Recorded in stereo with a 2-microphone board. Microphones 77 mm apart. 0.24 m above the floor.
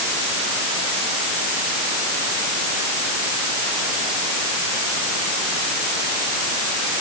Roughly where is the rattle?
No rattle in this recording.